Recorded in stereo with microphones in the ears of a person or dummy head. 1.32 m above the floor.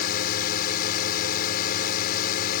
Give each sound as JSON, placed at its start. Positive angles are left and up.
{"t": 0.0, "sound": "a drone", "side_deg": 55}